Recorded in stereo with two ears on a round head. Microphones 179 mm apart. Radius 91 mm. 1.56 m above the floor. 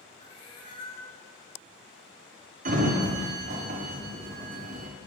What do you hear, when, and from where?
0.2 s a cat meowing: 25° left (ahead or behind), 0.8 m
2.6 s a sliding door: 40° right (ahead or behind), 0.5 m